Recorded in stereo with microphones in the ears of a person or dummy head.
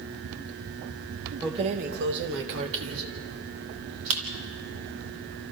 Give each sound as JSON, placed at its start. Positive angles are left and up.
{"t": 1.4, "sound": "keys jangling", "side_deg": -15, "distance_m": 0.8}